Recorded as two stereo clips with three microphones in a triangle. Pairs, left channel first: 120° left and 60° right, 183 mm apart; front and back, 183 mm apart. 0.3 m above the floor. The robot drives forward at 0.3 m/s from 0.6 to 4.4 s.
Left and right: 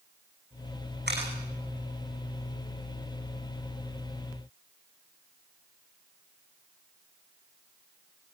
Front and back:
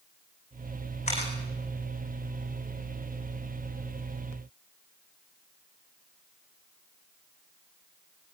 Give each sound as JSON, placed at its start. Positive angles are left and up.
{"t": 1.1, "sound": "a camera shutter", "azimuth_deg": -50, "distance_m": 8.0}